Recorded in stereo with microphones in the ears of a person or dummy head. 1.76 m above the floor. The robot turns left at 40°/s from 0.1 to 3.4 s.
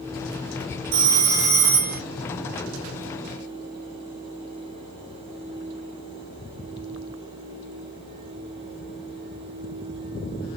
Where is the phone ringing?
75° right, 1.6 m; by 2.0 s 120° right, 1.6 m.